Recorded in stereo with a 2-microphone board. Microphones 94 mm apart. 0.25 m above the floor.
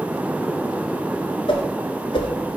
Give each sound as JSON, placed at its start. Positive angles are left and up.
{"t": 1.5, "sound": "a whoosh", "side_deg": 75, "distance_m": 1.1}